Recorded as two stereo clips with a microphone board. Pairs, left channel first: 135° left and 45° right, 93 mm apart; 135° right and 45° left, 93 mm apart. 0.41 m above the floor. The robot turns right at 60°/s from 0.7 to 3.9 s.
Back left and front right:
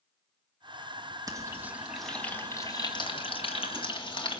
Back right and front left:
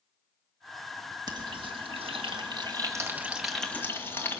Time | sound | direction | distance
1.3 | frying | straight ahead | 2 m